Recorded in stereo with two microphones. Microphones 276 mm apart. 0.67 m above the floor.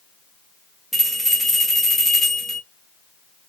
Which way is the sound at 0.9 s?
Centre (ahead or behind).